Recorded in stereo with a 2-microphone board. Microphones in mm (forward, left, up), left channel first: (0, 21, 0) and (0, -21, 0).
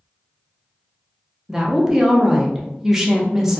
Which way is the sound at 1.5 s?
10° right (ahead or behind).